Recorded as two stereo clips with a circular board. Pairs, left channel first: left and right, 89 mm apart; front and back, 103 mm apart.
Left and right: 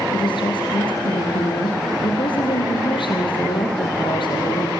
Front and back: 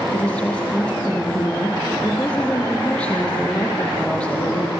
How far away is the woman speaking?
About 7 m.